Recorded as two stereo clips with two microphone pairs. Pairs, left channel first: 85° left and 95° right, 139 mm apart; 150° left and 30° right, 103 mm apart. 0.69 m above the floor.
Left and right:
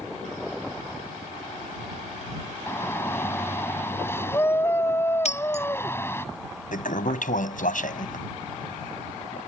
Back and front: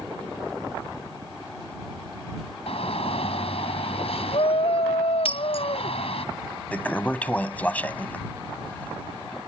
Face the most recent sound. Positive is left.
turn(degrees=75)